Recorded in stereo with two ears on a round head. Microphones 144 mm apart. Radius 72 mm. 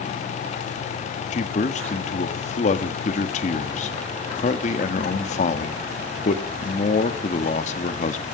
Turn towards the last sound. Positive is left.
turn(degrees=45)  # may be behind; listen again after turning